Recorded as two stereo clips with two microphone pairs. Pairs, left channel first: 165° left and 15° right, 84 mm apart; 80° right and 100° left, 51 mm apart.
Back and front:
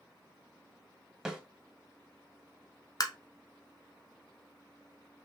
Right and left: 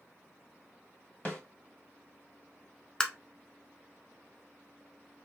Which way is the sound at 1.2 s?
100° right.